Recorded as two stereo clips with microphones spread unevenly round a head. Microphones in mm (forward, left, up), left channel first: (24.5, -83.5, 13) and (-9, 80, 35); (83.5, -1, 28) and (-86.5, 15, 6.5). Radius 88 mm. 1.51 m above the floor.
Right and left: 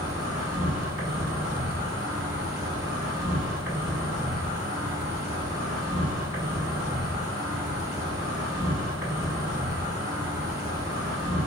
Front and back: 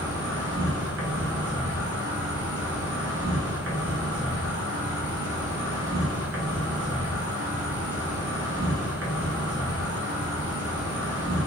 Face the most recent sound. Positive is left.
turn(degrees=-175)